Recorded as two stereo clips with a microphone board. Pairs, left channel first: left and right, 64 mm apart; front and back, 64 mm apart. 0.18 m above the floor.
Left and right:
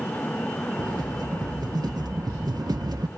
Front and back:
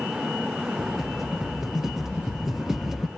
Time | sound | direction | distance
0.8 | a rattle | 95° right | 1.5 m